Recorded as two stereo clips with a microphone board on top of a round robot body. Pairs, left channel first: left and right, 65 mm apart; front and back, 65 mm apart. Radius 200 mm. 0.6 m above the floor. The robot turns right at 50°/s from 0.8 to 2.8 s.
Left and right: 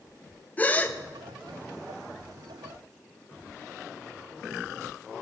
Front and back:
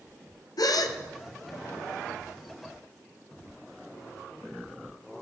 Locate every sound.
0.6 s a gasp: 20° left, 0.8 m; by 1.0 s 30° left, 0.8 m